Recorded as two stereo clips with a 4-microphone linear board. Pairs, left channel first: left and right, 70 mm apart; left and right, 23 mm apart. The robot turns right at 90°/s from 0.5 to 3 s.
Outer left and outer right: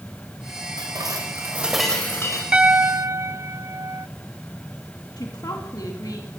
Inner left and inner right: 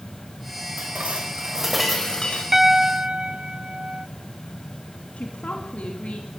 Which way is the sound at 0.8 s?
90° right.